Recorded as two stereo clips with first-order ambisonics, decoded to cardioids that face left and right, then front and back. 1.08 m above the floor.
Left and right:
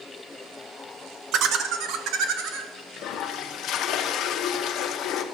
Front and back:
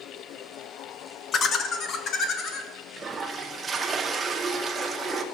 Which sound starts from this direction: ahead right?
Laughter, at 1.3 s.